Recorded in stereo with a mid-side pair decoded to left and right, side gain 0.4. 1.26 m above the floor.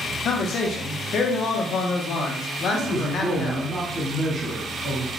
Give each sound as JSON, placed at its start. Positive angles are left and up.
{"t": 0.2, "sound": "a man speaking", "azimuth_deg": 70, "distance_m": 1.1}
{"t": 2.7, "sound": "a man speaking", "azimuth_deg": -30, "distance_m": 2.5}